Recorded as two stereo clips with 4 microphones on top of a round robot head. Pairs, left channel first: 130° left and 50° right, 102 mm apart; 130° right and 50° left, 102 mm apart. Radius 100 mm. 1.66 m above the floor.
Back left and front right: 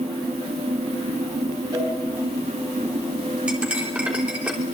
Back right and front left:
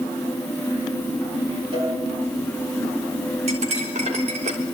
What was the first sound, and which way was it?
A cowbell, 5° left.